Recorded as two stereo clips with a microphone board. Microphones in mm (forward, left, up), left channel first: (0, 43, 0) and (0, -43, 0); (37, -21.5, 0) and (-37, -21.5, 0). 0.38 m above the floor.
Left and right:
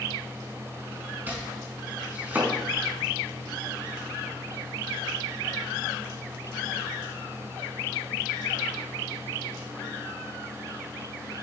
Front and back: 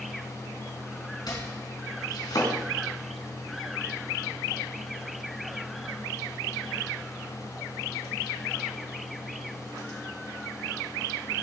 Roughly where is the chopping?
Ahead.